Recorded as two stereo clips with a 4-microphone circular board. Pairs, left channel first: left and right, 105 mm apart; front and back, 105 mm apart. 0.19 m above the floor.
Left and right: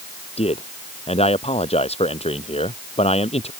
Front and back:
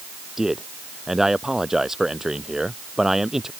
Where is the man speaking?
95° left.